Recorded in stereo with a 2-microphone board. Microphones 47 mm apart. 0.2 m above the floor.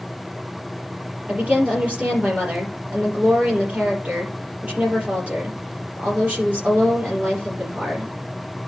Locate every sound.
1.3 s a woman speaking: 30° right (ahead or behind), 4.5 m